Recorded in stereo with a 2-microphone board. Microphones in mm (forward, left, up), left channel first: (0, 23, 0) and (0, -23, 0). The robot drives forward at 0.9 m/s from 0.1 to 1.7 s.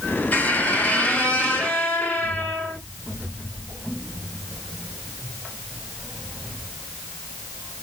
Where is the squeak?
40° left (ahead or behind), 1.6 m; by 2.8 s 25° left (ahead or behind), 2.5 m.